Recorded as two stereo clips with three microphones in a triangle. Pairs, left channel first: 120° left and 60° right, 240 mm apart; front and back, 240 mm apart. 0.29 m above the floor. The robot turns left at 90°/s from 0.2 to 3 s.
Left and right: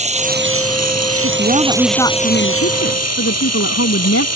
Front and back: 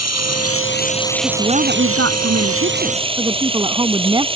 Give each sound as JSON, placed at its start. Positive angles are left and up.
{"t": 0.0, "sound": "running water", "azimuth_deg": 5}
{"t": 1.2, "sound": "a woman speaking", "azimuth_deg": -95}